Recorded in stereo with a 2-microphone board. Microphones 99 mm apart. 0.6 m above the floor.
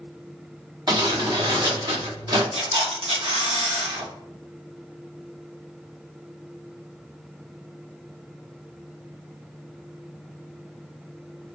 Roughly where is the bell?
I don't hear a bell.